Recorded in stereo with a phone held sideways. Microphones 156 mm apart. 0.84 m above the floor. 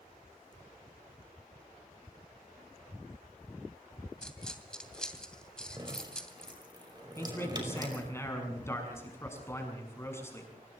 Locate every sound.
4.2 s a dropped coin: 5° left (ahead or behind), 2.5 m
5.8 s dripping: 30° right (ahead or behind), 5 m
7.2 s a man speaking: 15° left (ahead or behind), 6.5 m